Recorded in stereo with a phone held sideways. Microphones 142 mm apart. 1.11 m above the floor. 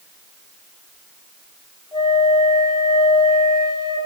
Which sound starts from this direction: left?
A flute, at 1.9 s.